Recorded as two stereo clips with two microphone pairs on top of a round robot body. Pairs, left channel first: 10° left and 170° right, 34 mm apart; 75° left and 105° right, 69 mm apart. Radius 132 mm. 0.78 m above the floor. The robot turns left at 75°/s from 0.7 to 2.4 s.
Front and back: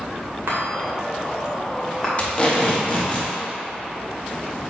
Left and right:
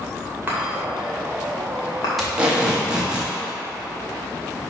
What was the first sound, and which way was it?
A chime, 170° right.